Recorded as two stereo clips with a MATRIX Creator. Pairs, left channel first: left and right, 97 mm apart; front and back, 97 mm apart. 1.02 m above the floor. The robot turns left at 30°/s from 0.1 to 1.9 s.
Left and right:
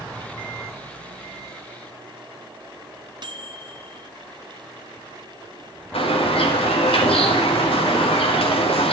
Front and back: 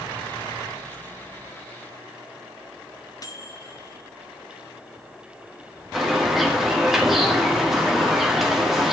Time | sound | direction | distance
3.2 | a microwave | 50° right | 1.1 m
5.9 | a bird | 90° left | 2 m